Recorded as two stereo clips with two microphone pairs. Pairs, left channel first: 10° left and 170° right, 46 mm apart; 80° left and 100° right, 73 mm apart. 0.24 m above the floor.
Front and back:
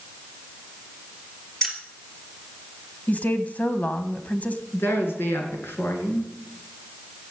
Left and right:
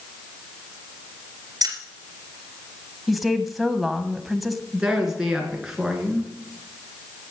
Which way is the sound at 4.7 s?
15° right.